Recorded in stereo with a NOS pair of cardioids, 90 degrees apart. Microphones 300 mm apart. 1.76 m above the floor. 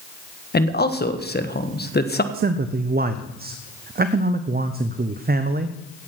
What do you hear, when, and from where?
0.5 s a man speaking: 35° left, 1.6 m
2.3 s a man speaking: 30° right, 0.8 m